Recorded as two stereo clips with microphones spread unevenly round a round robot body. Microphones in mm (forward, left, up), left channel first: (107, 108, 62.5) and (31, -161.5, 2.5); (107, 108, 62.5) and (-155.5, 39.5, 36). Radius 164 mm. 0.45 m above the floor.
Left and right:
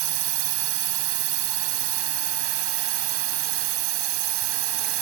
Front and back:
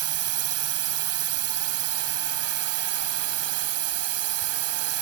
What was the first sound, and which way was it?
A drone, 140° right.